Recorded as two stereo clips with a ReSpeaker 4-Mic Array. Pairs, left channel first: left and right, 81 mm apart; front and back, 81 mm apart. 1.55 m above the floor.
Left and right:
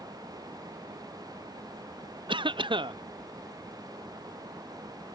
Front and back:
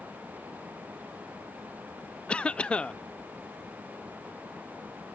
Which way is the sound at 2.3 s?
80° right.